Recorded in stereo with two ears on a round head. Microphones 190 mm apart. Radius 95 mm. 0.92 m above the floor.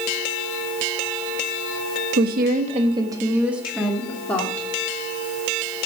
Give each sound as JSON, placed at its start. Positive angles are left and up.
{"t": 2.2, "sound": "a woman speaking", "side_deg": -50, "distance_m": 1.4}